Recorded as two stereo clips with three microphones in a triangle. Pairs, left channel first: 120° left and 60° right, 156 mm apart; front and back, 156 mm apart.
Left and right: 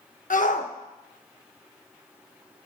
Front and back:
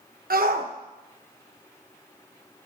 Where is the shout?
155° left, 1.0 m.